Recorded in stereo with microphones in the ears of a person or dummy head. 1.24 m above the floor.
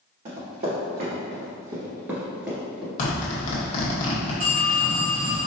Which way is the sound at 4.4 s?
45° right (ahead or behind).